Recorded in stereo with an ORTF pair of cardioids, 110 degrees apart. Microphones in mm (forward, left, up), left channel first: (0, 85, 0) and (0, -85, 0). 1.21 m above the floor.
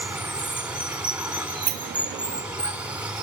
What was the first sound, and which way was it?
Running water, 5° right.